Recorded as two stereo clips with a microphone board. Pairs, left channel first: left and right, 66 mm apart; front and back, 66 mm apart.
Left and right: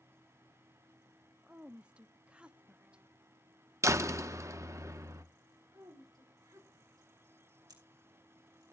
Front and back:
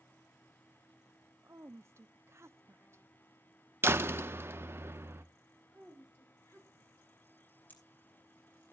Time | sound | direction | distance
1.4 | a woman speaking | 155° right | 0.6 m
3.8 | a door slam | 125° right | 0.7 m
5.7 | a woman speaking | 55° right | 10 m
7.7 | scissors | 65° right | 6 m